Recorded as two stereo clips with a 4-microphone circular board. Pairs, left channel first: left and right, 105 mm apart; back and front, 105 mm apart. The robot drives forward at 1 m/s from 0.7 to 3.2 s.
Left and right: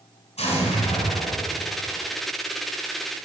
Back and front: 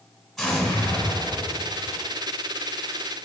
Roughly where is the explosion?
Left.